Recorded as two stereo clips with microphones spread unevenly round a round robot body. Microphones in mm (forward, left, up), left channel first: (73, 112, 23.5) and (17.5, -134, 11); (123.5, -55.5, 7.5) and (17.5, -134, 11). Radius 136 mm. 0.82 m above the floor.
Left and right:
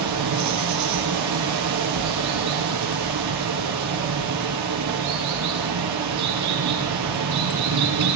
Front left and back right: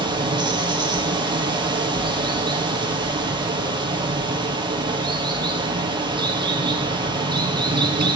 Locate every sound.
0.0 s running water: 85° right, 2.5 m